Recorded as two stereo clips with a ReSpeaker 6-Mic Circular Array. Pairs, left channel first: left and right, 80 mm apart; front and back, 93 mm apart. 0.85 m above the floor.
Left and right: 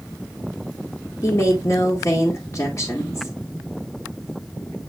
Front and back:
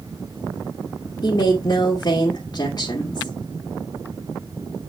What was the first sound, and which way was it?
A woman speaking, 40° left.